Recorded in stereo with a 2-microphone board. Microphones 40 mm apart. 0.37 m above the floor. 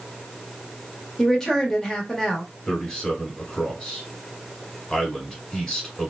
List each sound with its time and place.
1.2 s a woman speaking: 10° left (ahead or behind), 1.0 m
2.7 s a man speaking: 15° left (ahead or behind), 1.7 m